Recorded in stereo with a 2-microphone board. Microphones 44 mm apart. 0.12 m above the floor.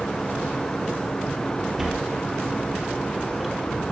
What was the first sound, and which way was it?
A sliding door, 10° right (ahead or behind).